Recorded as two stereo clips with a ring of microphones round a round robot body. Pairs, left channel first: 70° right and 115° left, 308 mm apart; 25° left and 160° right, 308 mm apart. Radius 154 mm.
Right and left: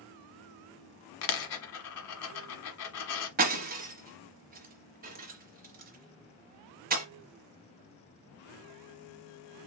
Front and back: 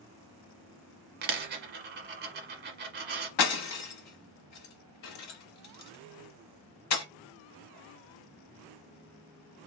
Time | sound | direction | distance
1.2 | a dropped coin | 100° right | 1.2 m
3.4 | breaking glass | 55° left | 1.1 m